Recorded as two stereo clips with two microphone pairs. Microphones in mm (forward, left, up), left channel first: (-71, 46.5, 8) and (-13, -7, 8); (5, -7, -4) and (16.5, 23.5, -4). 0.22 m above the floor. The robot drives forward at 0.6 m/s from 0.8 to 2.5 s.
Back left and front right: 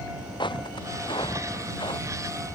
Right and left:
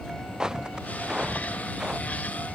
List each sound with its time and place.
0.4 s footsteps: 140° left